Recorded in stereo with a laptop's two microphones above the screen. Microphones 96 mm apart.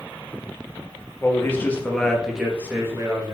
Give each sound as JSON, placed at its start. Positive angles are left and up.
{"t": 1.2, "sound": "a man speaking", "side_deg": 30, "distance_m": 2.5}